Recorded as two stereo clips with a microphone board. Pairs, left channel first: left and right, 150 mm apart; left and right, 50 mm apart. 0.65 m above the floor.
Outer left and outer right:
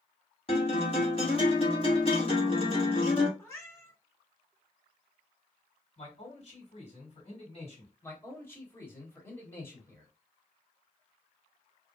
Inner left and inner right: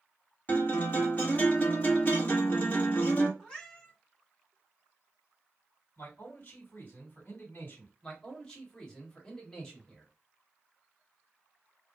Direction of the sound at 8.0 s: 15° left (ahead or behind).